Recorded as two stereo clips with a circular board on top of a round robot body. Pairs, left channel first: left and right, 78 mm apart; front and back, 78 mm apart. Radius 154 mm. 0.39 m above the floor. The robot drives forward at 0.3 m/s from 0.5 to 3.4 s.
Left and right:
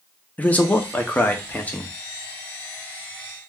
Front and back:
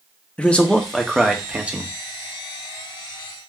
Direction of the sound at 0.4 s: 55° left.